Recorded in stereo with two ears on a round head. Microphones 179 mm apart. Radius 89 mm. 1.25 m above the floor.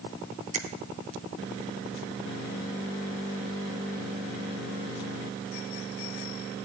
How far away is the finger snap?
About 1.4 m.